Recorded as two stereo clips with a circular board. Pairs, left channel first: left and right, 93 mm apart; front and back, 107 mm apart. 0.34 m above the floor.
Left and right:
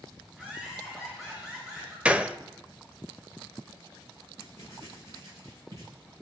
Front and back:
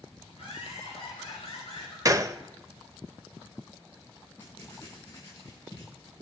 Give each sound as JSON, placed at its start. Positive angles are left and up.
{"t": 0.3, "sound": "laughter", "azimuth_deg": -15, "distance_m": 6.0}
{"t": 2.0, "sound": "a gunshot", "azimuth_deg": -155, "distance_m": 0.5}
{"t": 4.4, "sound": "writing", "azimuth_deg": -60, "distance_m": 5.5}